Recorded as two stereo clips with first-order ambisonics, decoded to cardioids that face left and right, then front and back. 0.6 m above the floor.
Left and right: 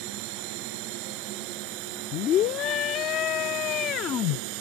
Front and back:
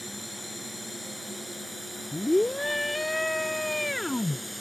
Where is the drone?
90° right.